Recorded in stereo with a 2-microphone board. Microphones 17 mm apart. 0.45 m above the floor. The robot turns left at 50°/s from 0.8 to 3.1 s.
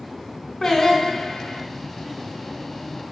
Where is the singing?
145° left, 2 m; by 1.6 s 105° left, 2 m.